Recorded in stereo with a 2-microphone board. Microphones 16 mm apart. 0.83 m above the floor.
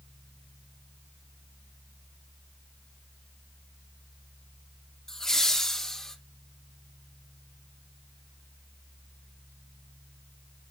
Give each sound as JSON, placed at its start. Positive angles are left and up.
{"t": 5.1, "sound": "laughter", "side_deg": 35, "distance_m": 2.5}